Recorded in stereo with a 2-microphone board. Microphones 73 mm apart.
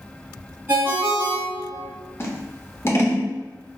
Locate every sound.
0.7 s a ringtone: 35° right (ahead or behind), 1.9 m
2.2 s scissors: 35° left (ahead or behind), 0.7 m